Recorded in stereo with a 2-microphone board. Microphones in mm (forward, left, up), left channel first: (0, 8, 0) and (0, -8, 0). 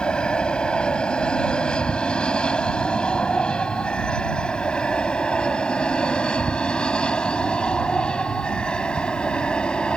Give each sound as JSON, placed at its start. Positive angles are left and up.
{"t": 0.0, "sound": "an aircraft", "side_deg": 75}